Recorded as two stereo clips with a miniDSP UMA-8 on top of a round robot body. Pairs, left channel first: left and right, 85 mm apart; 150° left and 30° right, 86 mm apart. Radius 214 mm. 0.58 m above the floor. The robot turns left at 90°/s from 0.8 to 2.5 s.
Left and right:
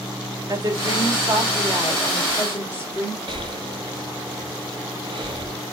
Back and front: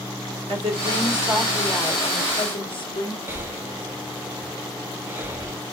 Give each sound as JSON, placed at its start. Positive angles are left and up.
{"t": 0.5, "sound": "a woman speaking", "azimuth_deg": -40, "distance_m": 3.5}
{"t": 3.3, "sound": "breathing", "azimuth_deg": -95, "distance_m": 1.6}